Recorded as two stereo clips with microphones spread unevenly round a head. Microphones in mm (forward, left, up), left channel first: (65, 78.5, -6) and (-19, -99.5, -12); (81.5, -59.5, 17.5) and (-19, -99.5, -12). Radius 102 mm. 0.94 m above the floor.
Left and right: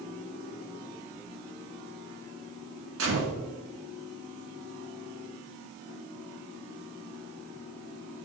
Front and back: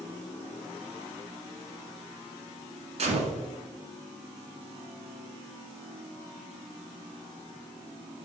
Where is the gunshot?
135° right, 2 m.